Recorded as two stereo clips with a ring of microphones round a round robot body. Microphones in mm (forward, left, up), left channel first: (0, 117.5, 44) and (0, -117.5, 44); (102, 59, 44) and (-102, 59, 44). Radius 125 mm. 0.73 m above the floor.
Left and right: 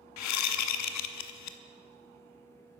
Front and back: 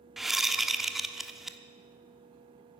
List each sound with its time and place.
0.2 s a whoosh: 90° left, 1.0 m